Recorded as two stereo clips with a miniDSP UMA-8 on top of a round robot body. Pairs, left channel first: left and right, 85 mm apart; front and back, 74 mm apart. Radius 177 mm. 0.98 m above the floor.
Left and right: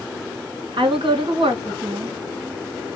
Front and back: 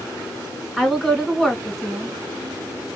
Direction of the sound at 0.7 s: 90° right.